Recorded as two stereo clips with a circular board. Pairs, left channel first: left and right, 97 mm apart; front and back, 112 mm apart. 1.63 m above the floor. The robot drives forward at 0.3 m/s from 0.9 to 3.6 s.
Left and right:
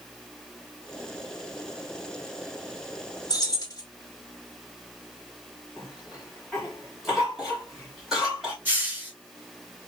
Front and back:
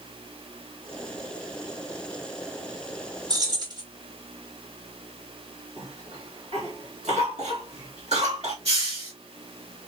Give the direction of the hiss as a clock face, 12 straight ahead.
5 o'clock.